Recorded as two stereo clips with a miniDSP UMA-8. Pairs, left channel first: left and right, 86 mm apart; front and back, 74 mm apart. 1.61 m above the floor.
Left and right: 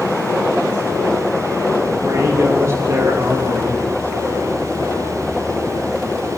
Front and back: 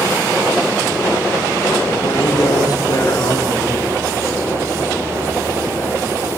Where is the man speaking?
35° right, 3 m.